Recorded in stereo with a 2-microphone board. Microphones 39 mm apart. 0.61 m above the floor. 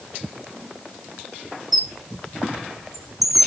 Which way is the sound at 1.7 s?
5° right (ahead or behind).